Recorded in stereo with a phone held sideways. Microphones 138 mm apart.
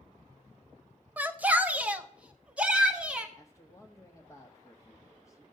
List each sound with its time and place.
1.2 s a shout: 10° right (ahead or behind), 0.6 m; by 3.3 s 5° right (ahead or behind), 1.8 m
3.4 s a man speaking: 20° left (ahead or behind), 1.5 m